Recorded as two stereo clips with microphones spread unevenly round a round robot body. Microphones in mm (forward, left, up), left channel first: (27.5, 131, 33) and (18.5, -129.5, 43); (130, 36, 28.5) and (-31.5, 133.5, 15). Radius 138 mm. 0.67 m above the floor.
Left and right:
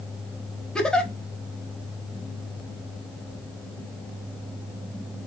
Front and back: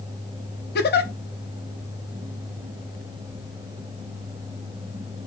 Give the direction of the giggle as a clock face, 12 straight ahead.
12 o'clock.